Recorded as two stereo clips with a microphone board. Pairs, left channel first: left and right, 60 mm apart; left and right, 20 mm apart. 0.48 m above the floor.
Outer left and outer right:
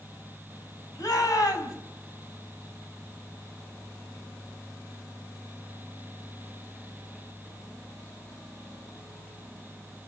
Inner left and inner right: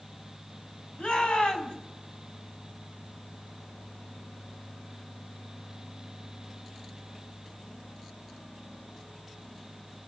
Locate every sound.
1.0 s a shout: 70° left (ahead or behind), 4.5 m